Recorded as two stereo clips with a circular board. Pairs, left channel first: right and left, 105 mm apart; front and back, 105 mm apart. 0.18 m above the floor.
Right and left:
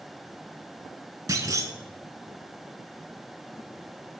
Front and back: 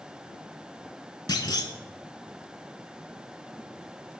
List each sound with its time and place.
1.3 s a clunk: 40° left, 0.6 m